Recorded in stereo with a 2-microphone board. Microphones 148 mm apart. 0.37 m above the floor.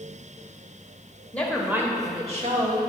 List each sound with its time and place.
1.3 s a woman speaking: 10° left (ahead or behind), 1.1 m; by 2.8 s 60° right (ahead or behind), 1.5 m